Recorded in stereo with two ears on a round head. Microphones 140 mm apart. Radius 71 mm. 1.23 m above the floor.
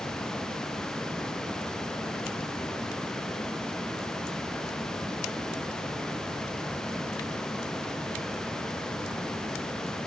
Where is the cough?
No cough in this recording.